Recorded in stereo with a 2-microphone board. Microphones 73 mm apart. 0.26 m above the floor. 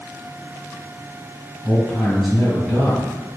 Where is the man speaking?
5° left (ahead or behind), 1.9 m.